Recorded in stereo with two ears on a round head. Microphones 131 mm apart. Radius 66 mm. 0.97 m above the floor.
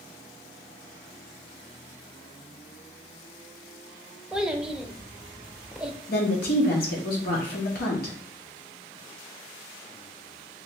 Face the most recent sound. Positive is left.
turn(degrees=70)  # may be behind; listen again after turning